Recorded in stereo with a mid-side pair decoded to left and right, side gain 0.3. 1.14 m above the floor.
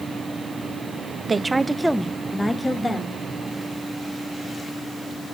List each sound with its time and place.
1.3 s a woman speaking: 35° right, 0.7 m; by 3.2 s 35° left, 1.8 m